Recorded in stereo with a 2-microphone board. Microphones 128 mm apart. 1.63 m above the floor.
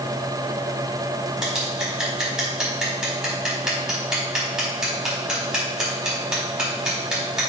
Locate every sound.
1.4 s scissors: 5° right (ahead or behind), 5 m